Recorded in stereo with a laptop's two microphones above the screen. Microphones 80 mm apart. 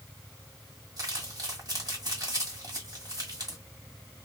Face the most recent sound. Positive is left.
turn(degrees=-55)  # may be behind; listen again after turning